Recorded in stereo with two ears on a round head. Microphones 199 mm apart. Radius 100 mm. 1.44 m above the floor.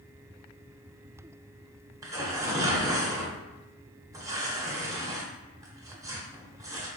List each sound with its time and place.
2.0 s tearing paper: 15° right (ahead or behind), 0.7 m